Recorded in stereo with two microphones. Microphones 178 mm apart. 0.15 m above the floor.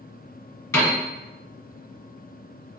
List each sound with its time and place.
0.7 s a piano: 15° left (ahead or behind), 1.8 m